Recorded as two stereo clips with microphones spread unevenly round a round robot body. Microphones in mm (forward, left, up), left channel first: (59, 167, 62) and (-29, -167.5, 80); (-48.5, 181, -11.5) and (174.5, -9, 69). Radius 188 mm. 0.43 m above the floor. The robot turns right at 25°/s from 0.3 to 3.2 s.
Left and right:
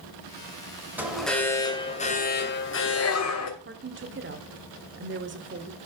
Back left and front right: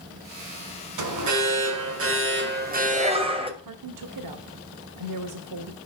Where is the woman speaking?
50° right, 1.5 m.